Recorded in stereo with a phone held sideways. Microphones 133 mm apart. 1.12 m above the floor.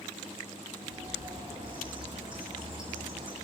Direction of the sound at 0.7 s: 40° right (ahead or behind).